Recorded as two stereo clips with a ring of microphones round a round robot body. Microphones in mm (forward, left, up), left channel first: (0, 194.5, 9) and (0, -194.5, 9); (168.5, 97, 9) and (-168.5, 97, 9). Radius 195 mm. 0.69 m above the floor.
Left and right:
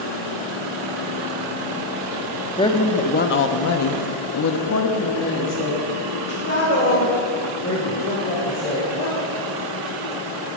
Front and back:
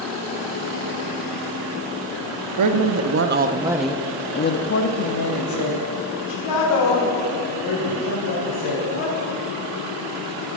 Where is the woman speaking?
165° left, 1.0 m; by 9.1 s 20° left, 3.5 m.